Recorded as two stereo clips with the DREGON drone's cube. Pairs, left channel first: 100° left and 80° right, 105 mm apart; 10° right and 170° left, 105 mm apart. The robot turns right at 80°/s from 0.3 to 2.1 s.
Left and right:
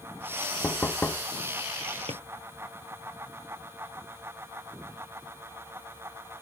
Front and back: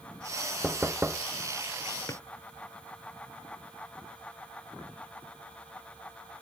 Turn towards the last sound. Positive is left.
turn(degrees=-75)